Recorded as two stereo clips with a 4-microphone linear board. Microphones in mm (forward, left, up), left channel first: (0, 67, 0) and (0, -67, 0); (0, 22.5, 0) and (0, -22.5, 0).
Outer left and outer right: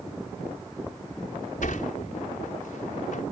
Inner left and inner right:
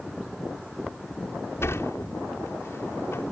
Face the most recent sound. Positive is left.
turn(degrees=75)  # may be behind; listen again after turning